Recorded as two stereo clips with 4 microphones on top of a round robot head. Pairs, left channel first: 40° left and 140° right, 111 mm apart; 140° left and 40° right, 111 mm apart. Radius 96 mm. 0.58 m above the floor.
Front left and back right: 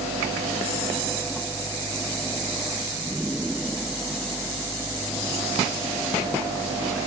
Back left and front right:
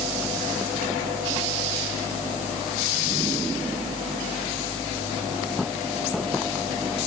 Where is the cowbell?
No cowbell in this recording.